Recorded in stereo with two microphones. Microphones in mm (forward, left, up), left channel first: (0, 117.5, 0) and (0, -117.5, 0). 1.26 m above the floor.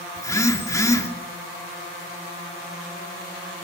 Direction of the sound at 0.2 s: 15° left (ahead or behind).